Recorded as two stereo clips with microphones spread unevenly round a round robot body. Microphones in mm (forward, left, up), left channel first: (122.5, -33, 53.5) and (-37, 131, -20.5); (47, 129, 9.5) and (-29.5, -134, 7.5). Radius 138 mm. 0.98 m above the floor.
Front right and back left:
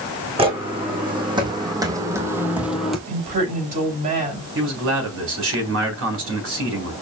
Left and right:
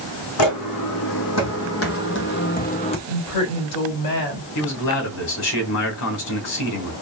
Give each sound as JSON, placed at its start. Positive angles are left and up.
{"t": 0.4, "sound": "footsteps", "azimuth_deg": 60, "distance_m": 2.5}
{"t": 3.1, "sound": "a woman speaking", "azimuth_deg": 80, "distance_m": 4.0}
{"t": 4.5, "sound": "a man speaking", "azimuth_deg": 105, "distance_m": 4.0}